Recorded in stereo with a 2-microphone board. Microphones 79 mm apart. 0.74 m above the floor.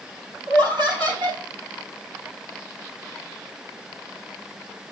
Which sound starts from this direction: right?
Laughter, at 0.5 s.